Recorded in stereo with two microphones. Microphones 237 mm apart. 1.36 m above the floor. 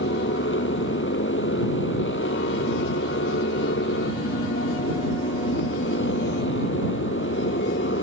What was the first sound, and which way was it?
A motorcycle, 50° left (ahead or behind).